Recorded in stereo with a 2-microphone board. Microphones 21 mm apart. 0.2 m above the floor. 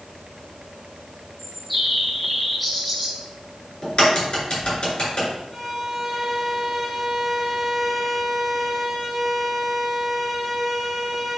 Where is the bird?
5° left (ahead or behind), 2.5 m.